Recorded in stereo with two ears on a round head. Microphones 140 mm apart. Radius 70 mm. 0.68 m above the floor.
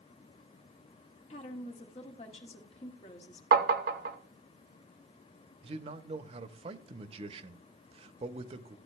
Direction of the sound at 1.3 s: 40° left (ahead or behind).